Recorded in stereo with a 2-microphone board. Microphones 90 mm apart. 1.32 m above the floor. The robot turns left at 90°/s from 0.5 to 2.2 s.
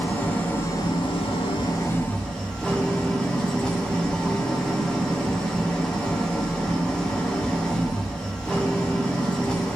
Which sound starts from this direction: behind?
An engine running, at 0.0 s.